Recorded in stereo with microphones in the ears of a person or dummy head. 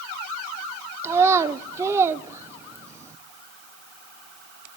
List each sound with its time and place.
1.0 s a child speaking: 15° right (ahead or behind), 0.7 m